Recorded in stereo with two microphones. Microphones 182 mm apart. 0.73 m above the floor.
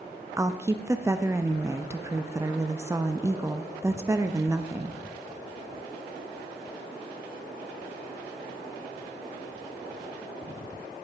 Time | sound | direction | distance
0.4 | a woman speaking | 15° right (ahead or behind) | 0.6 m